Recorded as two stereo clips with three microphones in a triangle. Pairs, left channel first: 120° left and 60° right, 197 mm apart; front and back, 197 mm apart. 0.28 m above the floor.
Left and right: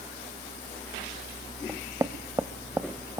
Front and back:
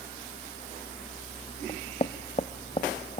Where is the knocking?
Straight ahead, 0.8 m.